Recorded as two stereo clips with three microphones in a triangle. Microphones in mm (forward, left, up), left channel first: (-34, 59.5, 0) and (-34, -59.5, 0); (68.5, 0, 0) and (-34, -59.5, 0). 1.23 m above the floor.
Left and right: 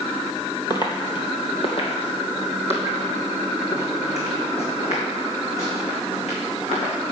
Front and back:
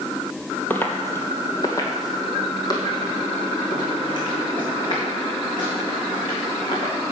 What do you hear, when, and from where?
0.7 s footsteps: 95° left, 1.4 m; by 6.9 s 75° left, 5 m